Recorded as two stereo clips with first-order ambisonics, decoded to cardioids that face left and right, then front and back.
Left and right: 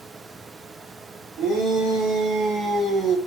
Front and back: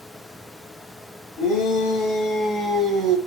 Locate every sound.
1.4 s a shout: 40° right, 1.0 m; by 3.2 s 165° right, 0.6 m